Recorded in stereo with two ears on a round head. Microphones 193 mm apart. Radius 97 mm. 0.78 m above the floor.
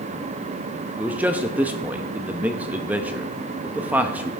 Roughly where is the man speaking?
Centre.